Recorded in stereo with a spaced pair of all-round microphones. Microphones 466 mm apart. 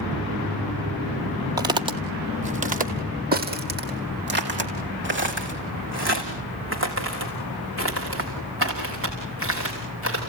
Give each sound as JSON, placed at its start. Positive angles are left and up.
{"t": 1.6, "sound": "footsteps", "side_deg": -10, "distance_m": 1.7}